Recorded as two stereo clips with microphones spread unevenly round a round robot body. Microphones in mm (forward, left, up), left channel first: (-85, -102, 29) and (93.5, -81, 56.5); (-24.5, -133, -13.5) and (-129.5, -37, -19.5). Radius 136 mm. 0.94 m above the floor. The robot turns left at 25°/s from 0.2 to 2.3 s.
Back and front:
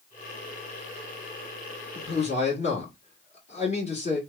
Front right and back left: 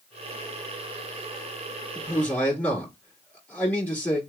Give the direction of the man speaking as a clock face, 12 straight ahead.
4 o'clock.